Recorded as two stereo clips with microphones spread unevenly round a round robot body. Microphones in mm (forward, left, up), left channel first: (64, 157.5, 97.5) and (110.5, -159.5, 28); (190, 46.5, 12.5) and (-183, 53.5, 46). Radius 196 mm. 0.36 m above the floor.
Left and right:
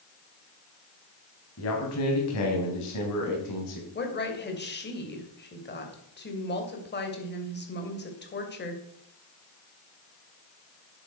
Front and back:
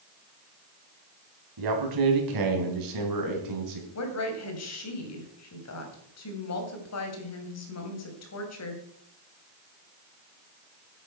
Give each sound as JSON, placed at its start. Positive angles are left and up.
{"t": 1.6, "sound": "a man speaking", "azimuth_deg": 155, "distance_m": 3.0}
{"t": 4.0, "sound": "a woman speaking", "azimuth_deg": 35, "distance_m": 3.0}